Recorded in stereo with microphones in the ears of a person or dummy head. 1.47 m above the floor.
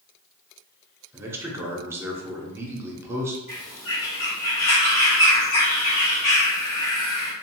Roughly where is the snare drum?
No snare drum in this recording.